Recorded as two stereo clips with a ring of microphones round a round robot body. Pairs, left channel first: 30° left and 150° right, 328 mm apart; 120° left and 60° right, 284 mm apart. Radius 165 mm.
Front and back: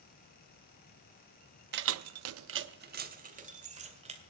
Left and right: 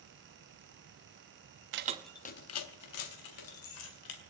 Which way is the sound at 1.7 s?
100° right.